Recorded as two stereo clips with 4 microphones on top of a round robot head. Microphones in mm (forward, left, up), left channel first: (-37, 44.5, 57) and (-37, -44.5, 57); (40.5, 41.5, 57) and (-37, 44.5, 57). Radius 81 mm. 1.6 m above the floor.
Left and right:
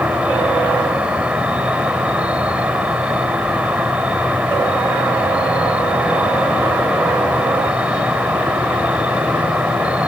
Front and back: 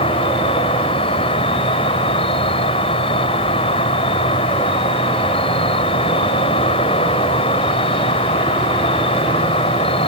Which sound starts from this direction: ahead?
An insect, at 0.0 s.